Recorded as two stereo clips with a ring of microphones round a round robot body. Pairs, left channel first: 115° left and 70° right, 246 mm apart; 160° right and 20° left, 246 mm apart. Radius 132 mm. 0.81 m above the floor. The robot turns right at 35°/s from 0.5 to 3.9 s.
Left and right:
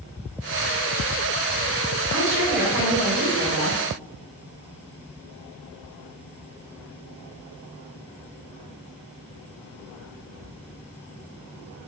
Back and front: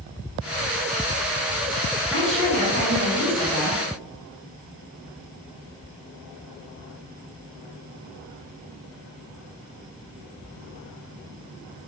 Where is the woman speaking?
55° right, 2 m; by 3.8 s 5° left, 2 m.